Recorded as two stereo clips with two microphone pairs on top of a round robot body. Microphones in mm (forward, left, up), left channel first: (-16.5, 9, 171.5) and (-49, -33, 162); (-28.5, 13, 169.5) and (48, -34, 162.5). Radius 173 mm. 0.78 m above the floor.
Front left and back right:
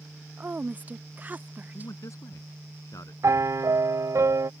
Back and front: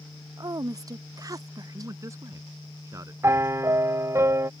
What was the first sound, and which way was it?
A woman speaking, 75° right.